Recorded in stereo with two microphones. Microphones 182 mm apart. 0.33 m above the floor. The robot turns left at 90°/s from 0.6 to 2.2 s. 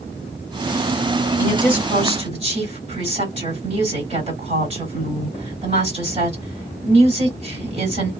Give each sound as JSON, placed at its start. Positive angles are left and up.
{"t": 1.4, "sound": "a woman speaking", "azimuth_deg": 20, "distance_m": 2.0}